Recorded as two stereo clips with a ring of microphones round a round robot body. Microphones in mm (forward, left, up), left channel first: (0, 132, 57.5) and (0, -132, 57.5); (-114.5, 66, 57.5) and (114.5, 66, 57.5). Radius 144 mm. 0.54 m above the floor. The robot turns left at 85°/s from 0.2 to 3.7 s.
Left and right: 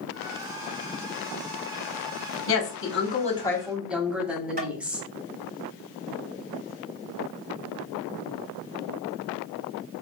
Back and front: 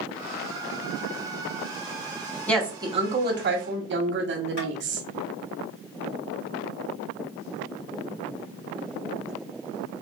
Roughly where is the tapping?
Behind right.